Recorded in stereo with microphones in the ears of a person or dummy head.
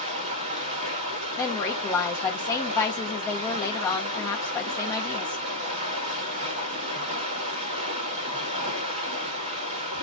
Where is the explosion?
I don't hear an explosion.